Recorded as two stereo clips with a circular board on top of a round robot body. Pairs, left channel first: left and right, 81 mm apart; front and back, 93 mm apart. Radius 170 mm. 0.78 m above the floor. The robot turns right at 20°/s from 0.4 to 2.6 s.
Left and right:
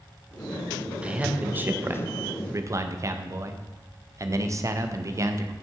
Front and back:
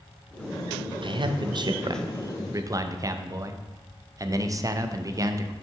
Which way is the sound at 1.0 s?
165° right.